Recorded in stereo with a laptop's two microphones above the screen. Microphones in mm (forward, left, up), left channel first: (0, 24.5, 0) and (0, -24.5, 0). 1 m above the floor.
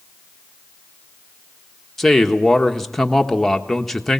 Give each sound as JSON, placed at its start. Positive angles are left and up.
{"t": 2.0, "sound": "a man speaking", "side_deg": 5, "distance_m": 1.4}